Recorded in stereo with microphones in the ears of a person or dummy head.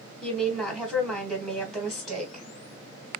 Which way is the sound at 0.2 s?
Centre (ahead or behind).